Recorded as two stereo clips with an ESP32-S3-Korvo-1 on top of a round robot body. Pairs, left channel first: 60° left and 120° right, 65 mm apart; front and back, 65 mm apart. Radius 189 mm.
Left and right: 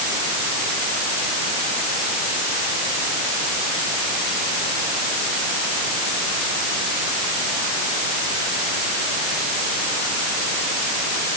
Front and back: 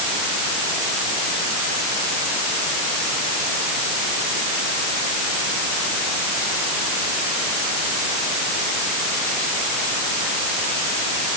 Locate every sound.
Only background noise.